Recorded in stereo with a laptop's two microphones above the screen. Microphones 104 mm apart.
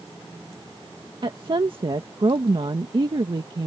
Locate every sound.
1.2 s a woman speaking: 50° right (ahead or behind)